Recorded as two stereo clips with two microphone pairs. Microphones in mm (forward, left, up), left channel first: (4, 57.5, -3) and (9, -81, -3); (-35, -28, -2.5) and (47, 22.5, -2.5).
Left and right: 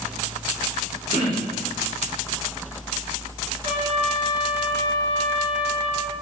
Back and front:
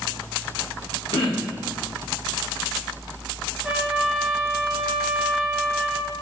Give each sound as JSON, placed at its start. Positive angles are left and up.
{"t": 1.1, "sound": "throat clearing", "azimuth_deg": -145, "distance_m": 2.5}
{"t": 3.6, "sound": "a trumpet", "azimuth_deg": -55, "distance_m": 3.0}